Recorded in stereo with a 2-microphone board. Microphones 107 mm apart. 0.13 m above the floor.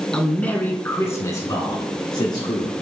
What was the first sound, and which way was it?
A man speaking, 5° left (ahead or behind).